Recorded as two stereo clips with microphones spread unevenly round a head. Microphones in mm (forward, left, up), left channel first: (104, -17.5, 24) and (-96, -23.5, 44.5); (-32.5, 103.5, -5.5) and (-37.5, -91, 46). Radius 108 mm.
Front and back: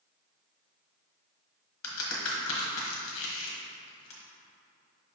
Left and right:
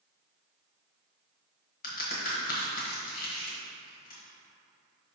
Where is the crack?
35° left, 1.3 m.